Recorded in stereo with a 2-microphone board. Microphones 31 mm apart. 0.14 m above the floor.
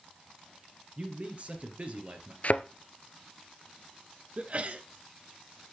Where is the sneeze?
40° right (ahead or behind), 1.6 m.